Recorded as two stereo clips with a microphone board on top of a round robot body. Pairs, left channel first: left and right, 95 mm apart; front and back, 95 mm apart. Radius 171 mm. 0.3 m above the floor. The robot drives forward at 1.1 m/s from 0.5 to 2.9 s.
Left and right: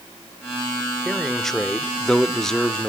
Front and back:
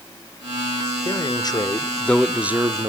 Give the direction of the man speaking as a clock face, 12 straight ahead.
12 o'clock.